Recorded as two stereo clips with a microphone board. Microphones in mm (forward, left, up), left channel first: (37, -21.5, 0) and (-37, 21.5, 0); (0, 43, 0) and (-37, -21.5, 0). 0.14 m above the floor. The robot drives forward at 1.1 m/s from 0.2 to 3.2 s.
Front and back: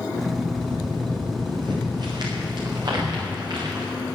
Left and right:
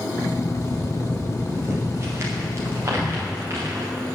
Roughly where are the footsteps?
Behind.